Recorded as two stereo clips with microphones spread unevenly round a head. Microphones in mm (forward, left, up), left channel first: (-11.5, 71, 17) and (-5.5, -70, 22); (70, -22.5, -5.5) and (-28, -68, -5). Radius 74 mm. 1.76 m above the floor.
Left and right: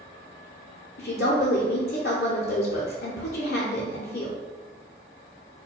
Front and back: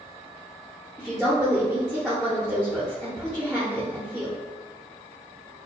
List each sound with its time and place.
1.0 s a woman speaking: 115° left, 0.5 m